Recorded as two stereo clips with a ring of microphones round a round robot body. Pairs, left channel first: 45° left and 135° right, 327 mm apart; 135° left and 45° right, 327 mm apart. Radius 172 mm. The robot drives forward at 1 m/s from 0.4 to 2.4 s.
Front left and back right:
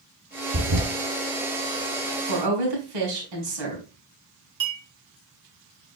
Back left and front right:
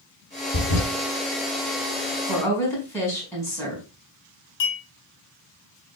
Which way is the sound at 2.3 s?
140° right.